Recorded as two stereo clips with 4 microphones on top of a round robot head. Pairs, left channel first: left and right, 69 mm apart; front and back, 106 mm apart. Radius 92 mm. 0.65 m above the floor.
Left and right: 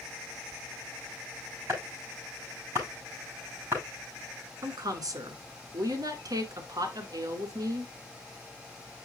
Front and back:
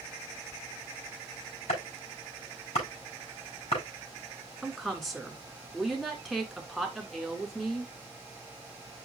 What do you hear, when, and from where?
1.7 s chopping: 25° right, 7 m
4.6 s a woman speaking: 90° right, 2 m